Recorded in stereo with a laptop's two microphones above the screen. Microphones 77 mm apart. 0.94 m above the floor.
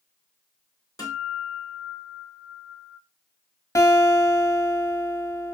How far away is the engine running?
I don't hear an engine running.